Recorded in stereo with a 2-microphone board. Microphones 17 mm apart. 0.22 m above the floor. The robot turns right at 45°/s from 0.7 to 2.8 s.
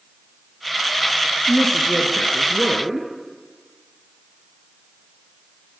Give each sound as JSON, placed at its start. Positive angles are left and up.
{"t": 1.5, "sound": "a woman speaking", "azimuth_deg": 140, "distance_m": 3.5}